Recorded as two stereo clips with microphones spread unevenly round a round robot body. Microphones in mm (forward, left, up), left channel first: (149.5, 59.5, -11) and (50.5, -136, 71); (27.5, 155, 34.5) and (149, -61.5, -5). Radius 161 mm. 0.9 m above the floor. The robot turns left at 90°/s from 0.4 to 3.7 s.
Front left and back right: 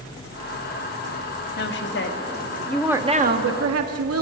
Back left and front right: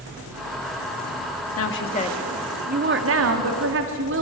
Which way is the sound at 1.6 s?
95° left.